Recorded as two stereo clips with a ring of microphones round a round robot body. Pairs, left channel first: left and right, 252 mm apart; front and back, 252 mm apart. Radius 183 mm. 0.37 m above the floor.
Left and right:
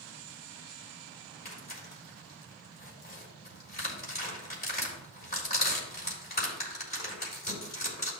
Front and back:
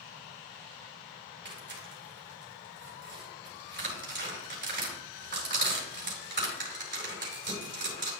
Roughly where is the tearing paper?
Behind left.